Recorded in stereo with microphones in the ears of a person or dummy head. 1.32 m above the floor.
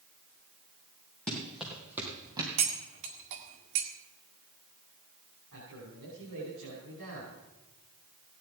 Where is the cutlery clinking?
70° right (ahead or behind), 1.8 m.